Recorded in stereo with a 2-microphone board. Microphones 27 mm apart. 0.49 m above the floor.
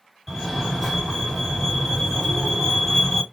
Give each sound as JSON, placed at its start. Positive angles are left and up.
{"t": 0.3, "sound": "a fire alarm", "side_deg": 0, "distance_m": 1.9}